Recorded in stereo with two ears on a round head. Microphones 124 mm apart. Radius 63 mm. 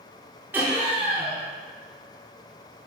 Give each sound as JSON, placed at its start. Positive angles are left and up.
{"t": 0.5, "sound": "laughter", "side_deg": -15, "distance_m": 0.6}